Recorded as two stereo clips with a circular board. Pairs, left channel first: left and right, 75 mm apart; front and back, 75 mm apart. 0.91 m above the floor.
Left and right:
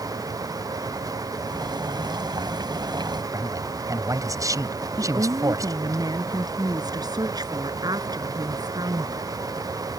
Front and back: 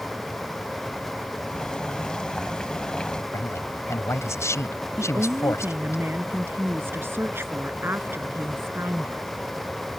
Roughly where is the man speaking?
Ahead right.